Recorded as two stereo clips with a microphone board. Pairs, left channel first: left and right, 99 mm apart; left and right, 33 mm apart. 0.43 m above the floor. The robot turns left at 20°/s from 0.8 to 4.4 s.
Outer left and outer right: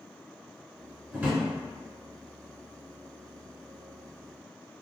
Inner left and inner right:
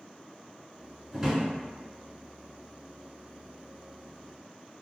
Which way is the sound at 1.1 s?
15° right (ahead or behind).